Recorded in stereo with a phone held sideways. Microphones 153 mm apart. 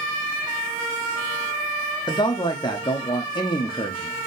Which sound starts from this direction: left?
A man speaking, at 2.1 s.